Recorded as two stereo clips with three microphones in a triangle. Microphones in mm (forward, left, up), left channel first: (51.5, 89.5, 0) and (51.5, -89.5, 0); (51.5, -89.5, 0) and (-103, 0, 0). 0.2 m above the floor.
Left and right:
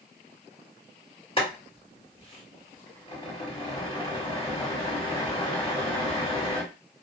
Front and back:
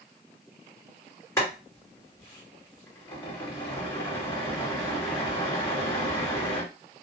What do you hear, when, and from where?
1.4 s boiling: 40° left, 2.5 m